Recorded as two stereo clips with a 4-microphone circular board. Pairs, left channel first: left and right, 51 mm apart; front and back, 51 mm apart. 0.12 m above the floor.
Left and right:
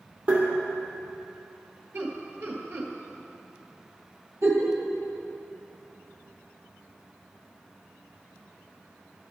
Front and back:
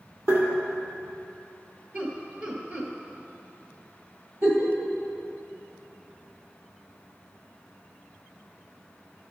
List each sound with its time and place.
0.3 s tapping: 150° right, 2.5 m
1.9 s laughter: 130° right, 1.9 m
4.4 s a giggle: 125° right, 1.8 m